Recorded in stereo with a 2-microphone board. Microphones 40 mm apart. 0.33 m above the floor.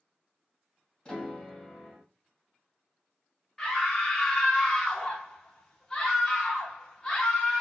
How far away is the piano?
About 1.8 m.